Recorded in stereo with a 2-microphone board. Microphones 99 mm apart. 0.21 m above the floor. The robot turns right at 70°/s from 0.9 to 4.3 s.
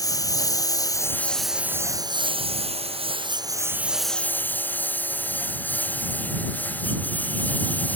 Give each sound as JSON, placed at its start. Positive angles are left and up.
{"t": 0.0, "sound": "a lawn mower", "side_deg": 35}